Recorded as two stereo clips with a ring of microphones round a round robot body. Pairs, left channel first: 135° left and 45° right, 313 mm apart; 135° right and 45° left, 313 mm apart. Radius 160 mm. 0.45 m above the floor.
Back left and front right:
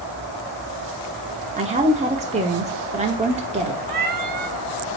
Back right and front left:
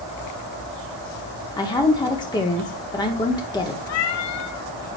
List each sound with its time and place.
1.6 s a woman speaking: 80° right, 0.9 m
3.9 s a cat meowing: 100° right, 0.6 m